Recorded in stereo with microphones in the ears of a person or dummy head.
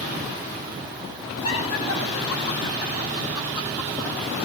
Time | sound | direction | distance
1.4 | laughter | 85° left | 7 m